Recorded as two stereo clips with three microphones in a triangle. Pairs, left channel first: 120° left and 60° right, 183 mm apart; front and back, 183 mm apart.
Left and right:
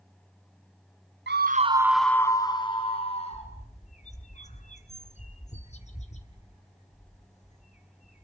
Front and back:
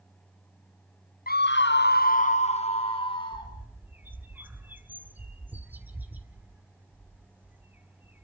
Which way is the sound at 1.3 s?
40° right.